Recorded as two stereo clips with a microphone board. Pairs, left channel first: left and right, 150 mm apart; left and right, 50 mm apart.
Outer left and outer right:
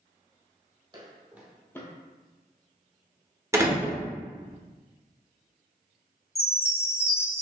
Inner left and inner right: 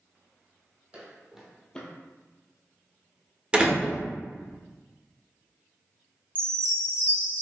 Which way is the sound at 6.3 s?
40° left (ahead or behind).